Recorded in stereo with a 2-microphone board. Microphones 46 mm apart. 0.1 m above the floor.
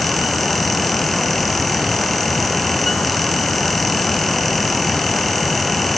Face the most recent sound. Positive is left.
No sound to turn to.